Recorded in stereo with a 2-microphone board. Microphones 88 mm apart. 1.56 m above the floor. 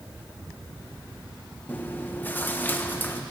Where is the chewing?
25° left (ahead or behind), 1.2 m.